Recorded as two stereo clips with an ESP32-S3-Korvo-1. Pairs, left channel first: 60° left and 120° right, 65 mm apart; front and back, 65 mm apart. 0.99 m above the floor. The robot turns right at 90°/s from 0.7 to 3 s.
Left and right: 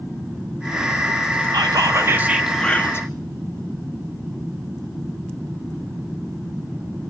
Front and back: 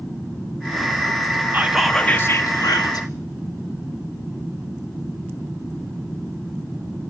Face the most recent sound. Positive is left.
turn(degrees=15)